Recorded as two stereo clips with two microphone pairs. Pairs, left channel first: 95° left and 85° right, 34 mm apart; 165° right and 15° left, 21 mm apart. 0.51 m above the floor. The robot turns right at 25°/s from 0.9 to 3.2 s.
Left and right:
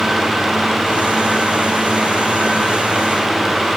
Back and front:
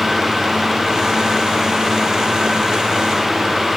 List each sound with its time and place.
Only background noise.